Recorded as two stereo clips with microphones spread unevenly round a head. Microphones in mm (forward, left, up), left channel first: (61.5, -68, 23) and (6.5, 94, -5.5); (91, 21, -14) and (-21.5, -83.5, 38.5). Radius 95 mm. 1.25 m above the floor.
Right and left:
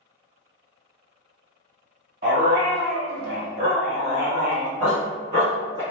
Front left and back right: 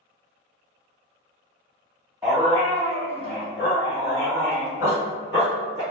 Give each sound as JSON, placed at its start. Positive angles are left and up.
{"t": 2.2, "sound": "a dog barking", "azimuth_deg": 150, "distance_m": 1.3}